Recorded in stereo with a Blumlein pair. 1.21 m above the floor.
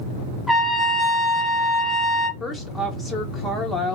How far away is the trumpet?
About 0.7 m.